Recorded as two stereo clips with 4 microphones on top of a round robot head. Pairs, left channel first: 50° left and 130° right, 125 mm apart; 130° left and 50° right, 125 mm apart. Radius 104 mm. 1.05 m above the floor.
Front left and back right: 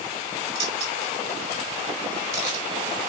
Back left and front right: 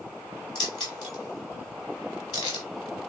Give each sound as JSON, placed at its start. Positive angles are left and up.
{"t": 0.6, "sound": "keys jangling", "azimuth_deg": -175, "distance_m": 4.0}